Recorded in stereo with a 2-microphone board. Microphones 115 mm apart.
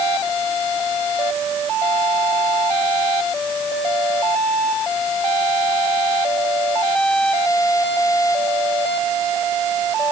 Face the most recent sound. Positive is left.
No sound to turn to.